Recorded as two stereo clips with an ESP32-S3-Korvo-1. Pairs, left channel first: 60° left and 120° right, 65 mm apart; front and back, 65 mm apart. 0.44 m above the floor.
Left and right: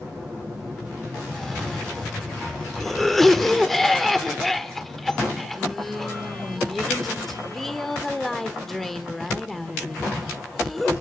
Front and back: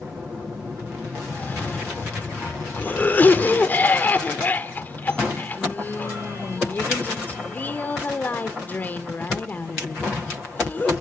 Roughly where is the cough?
Ahead.